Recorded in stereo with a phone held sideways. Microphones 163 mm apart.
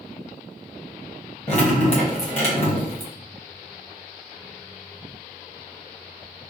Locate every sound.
1.5 s dripping: 40° left (ahead or behind), 1.1 m